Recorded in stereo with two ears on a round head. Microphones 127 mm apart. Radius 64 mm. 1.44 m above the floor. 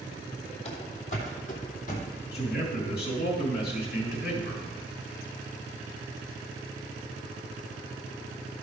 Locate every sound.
0.7 s running footsteps: 45° left (ahead or behind), 2.5 m; by 2.1 s 60° left (ahead or behind), 3 m
2.3 s a man speaking: 80° left, 3.5 m